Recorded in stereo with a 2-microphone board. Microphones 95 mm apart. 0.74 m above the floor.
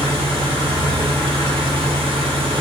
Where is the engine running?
75° right (ahead or behind), 2.5 m.